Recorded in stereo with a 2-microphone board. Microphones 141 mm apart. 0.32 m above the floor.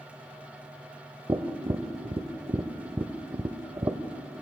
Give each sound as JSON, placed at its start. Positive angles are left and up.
{"t": 1.3, "sound": "tapping", "side_deg": -30, "distance_m": 0.7}